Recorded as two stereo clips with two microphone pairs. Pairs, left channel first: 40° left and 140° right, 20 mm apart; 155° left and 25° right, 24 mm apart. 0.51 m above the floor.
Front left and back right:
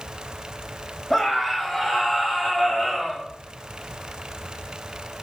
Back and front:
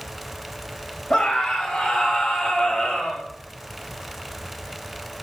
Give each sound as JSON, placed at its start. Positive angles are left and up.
{"t": 1.1, "sound": "a scream", "azimuth_deg": 115, "distance_m": 3.5}